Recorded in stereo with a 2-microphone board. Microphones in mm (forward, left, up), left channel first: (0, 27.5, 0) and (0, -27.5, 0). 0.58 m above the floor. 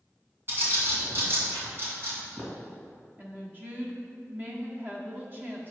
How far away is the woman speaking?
About 1.2 m.